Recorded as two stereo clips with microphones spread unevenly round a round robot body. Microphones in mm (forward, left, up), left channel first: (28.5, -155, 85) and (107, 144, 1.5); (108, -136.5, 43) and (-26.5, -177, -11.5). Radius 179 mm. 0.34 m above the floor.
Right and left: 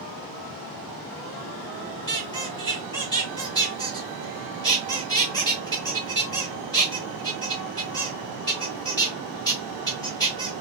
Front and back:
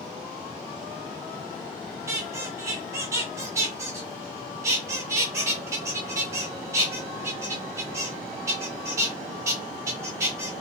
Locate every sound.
2.1 s a squeak: 165° left, 1.2 m